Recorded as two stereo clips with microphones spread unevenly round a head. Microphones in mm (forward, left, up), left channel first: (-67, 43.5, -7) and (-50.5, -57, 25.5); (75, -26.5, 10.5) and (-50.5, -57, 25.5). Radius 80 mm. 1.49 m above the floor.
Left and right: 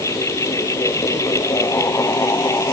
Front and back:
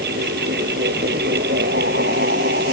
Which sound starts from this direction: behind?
A fan, at 0.0 s.